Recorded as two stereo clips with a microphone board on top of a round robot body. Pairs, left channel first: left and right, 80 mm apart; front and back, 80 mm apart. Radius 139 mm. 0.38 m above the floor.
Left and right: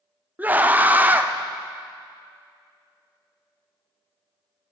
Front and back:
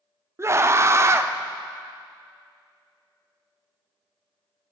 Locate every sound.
0.4 s a scream: 150° right, 1.0 m